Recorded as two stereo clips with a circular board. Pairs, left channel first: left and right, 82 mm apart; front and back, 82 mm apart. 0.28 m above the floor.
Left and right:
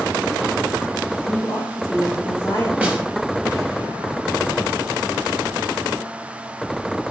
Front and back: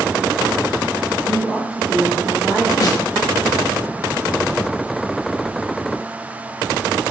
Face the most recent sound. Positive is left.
turn(degrees=-25)